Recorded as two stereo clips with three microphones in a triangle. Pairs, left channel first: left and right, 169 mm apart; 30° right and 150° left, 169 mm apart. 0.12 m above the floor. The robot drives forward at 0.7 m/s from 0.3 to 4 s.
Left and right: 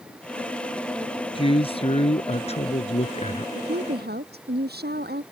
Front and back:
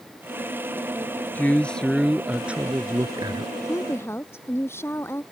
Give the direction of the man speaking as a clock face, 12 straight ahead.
10 o'clock.